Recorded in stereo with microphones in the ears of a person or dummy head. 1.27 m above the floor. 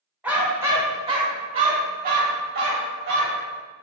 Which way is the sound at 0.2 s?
10° right (ahead or behind).